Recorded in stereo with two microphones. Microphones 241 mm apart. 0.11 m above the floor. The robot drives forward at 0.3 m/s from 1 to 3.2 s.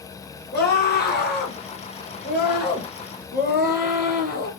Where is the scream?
45° left (ahead or behind), 2 m; by 4.5 s 40° left (ahead or behind), 2 m.